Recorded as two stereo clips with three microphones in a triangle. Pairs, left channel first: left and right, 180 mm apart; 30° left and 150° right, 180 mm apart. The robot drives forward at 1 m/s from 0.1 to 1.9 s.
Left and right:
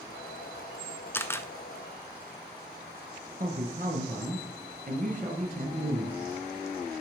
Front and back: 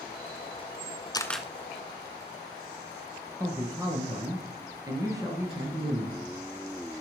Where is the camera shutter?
35° left, 0.5 m; by 1.5 s 145° left, 0.5 m.